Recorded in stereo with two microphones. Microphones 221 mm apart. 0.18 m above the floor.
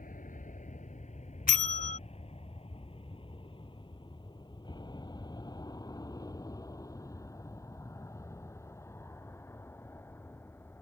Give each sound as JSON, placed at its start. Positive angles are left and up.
{"t": 0.0, "sound": "an aircraft", "side_deg": 35}
{"t": 1.5, "sound": "a bell", "side_deg": 40}